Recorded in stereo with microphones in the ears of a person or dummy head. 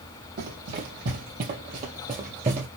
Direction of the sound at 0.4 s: 55° right (ahead or behind).